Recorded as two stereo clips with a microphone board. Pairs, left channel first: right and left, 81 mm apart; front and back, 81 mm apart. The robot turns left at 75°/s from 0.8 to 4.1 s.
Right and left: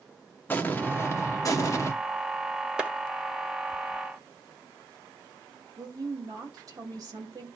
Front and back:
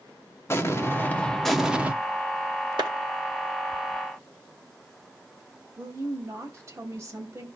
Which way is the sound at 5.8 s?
125° left.